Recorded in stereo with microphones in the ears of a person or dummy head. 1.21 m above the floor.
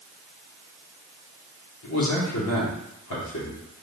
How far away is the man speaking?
About 2.5 m.